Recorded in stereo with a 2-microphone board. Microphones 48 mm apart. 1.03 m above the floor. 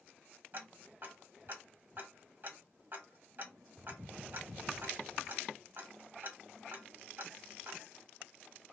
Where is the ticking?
40° right (ahead or behind), 1.1 m.